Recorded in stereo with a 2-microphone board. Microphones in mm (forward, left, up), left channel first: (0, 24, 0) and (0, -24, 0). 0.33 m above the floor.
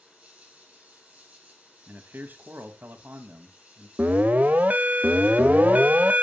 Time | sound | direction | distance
0.0 | an insect | 25° right (ahead or behind) | 6.5 m
1.9 | a man speaking | 40° right (ahead or behind) | 1.7 m
4.0 | an alarm | 35° right (ahead or behind) | 1.1 m